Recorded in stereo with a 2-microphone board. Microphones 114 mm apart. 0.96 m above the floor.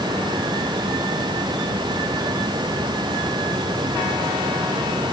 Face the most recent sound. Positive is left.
No sound to turn to.